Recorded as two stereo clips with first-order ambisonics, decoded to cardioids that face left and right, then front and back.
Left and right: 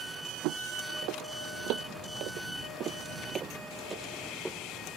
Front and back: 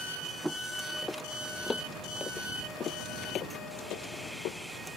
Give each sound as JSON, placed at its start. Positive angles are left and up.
{"t": 0.4, "sound": "footsteps", "azimuth_deg": -90}